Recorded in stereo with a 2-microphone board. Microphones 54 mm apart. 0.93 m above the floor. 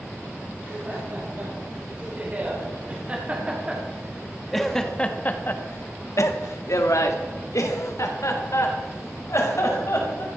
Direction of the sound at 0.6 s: 40° right (ahead or behind).